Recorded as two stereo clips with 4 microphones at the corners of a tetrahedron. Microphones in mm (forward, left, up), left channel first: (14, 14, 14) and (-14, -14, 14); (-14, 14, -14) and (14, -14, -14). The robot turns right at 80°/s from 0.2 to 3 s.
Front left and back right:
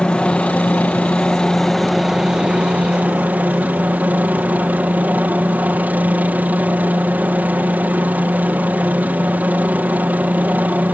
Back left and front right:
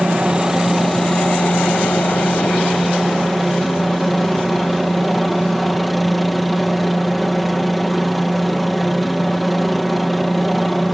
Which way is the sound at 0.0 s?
5° left.